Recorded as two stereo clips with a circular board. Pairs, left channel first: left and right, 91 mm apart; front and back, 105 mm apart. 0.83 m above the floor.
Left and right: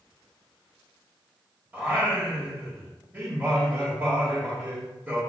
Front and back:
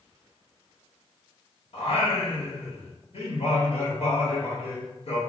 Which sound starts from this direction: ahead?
Singing, at 1.7 s.